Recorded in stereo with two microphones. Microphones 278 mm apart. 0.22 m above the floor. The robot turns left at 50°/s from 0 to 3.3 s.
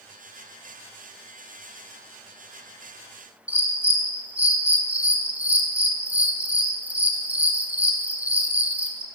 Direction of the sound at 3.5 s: 5° right (ahead or behind).